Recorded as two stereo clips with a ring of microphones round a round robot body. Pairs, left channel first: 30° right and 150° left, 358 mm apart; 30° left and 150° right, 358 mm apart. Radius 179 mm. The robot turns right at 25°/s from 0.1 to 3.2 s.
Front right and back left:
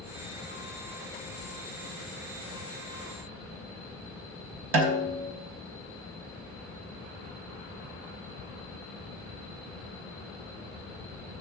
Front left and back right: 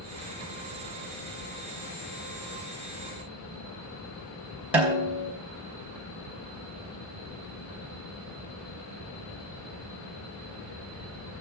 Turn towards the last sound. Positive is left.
turn(degrees=125)